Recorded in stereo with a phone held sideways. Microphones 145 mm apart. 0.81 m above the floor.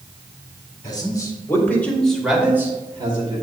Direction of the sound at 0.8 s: 30° left (ahead or behind).